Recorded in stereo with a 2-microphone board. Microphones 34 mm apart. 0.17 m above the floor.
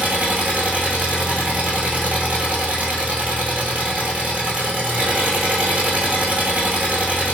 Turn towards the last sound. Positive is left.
turn(degrees=-50)  # may be behind; listen again after turning